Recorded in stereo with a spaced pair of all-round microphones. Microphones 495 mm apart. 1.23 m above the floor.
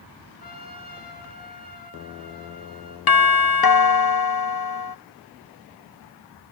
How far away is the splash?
No splash in this recording.